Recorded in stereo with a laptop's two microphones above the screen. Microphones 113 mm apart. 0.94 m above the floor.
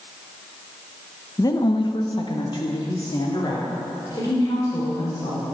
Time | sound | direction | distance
1.4 | a woman speaking | 30° left (ahead or behind) | 0.9 m